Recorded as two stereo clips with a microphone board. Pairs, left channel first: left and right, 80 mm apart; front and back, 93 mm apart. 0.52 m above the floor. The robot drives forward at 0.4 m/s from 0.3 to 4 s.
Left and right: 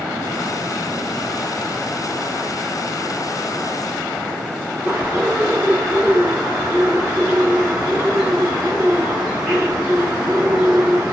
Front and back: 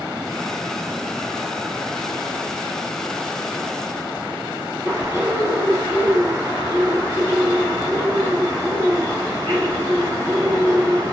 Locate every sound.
4.8 s a bird: 165° right, 1.6 m